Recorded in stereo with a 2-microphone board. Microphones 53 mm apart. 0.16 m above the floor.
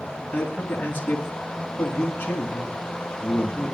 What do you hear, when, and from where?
0.3 s a man speaking: 20° left (ahead or behind), 2 m